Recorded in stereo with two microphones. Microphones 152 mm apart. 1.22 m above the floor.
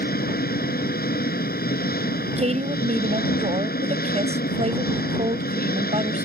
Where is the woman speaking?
45° right (ahead or behind).